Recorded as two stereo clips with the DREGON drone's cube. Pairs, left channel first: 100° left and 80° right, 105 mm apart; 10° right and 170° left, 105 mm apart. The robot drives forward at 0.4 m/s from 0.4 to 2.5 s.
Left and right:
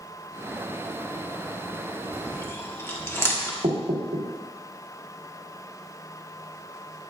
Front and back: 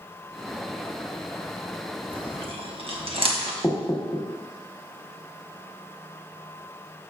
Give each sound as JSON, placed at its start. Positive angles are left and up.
{"t": 2.1, "sound": "chewing", "azimuth_deg": 160, "distance_m": 1.0}
{"t": 3.6, "sound": "knocking", "azimuth_deg": -95, "distance_m": 1.3}